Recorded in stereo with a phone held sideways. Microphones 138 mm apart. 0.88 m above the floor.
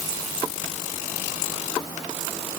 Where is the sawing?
I don't hear sawing.